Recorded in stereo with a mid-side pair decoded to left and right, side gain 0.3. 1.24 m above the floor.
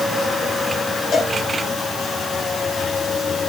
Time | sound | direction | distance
1.1 | a cowbell | 65° left | 5 m